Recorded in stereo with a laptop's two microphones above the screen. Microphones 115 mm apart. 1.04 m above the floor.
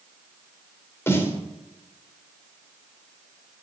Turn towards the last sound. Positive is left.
turn(degrees=20)  # may be behind; listen again after turning